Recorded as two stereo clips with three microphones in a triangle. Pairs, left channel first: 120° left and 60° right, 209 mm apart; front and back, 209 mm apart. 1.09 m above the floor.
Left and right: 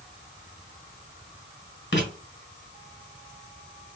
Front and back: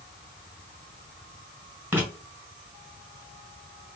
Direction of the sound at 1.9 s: 100° left.